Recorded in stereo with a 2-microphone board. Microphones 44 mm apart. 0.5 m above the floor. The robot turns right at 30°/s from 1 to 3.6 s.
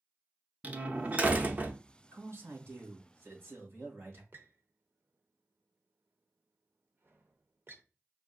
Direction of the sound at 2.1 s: 110° right.